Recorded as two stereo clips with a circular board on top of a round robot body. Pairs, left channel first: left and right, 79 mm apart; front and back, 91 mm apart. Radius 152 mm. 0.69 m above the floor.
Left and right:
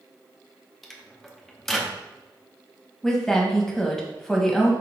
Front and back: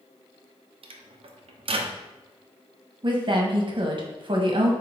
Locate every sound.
0.8 s a microwave: straight behind, 0.6 m
3.0 s a woman speaking: 175° left, 1.2 m